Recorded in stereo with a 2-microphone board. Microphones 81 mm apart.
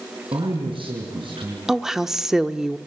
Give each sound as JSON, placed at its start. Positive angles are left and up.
{"t": 0.3, "sound": "a man speaking", "side_deg": -85, "distance_m": 6.0}
{"t": 1.7, "sound": "a woman speaking", "side_deg": -5, "distance_m": 0.8}